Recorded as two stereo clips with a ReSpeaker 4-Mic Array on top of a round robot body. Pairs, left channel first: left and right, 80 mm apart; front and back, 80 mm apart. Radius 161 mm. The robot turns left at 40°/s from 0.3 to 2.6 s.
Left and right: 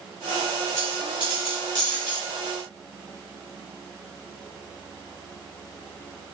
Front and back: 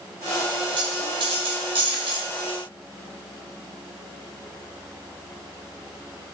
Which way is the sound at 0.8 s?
150° right.